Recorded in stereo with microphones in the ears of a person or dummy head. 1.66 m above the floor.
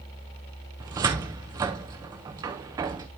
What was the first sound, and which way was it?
A cupboard door, 15° right (ahead or behind).